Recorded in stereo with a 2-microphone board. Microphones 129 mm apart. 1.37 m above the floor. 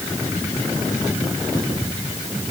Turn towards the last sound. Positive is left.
No sound to turn to.